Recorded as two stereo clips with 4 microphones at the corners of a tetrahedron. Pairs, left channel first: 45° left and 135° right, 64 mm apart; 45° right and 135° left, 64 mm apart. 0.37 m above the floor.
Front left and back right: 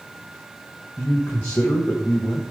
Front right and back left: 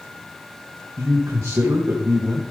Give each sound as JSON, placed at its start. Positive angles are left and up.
{"t": 1.0, "sound": "a man speaking", "azimuth_deg": 105, "distance_m": 1.7}